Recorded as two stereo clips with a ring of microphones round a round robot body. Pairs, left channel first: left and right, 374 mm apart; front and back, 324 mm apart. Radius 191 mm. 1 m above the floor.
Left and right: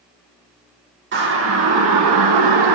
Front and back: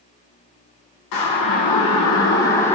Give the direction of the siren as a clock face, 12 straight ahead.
1 o'clock.